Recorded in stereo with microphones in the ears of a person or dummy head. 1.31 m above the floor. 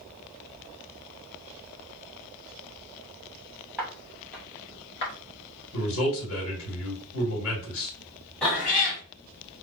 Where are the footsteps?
Centre (ahead or behind), 1.8 m; by 5.1 s 25° left (ahead or behind), 1.3 m.